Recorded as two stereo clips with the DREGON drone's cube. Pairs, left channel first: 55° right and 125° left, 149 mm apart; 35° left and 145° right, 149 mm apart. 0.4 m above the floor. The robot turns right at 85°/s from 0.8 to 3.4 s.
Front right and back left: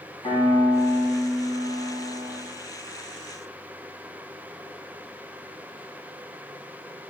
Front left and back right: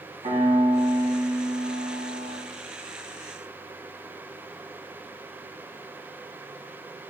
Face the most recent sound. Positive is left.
turn(degrees=120)